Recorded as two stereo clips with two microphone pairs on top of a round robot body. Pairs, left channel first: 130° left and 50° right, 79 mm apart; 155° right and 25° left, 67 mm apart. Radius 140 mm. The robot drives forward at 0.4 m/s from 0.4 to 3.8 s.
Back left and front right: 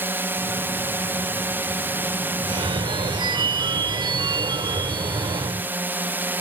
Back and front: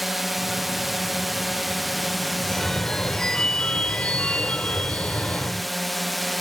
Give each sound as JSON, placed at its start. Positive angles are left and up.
{"t": 0.0, "sound": "a drone", "azimuth_deg": -60}
{"t": 2.4, "sound": "a phone ringing", "azimuth_deg": -75}